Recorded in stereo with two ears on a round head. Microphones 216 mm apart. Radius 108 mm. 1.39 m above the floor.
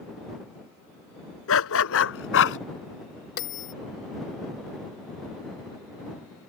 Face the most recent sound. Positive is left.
turn(degrees=50)  # may be behind; listen again after turning